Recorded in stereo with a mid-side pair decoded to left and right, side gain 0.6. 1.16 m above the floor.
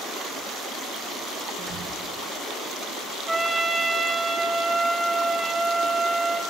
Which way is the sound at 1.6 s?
50° right.